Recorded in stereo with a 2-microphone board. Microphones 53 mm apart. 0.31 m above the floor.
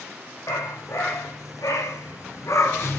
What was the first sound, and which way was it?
A dog barking, 85° left.